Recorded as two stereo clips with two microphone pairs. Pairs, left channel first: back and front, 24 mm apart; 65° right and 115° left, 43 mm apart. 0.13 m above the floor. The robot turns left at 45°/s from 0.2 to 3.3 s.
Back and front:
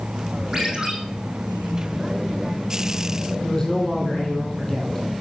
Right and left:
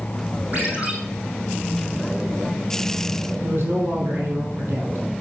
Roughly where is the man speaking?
Left.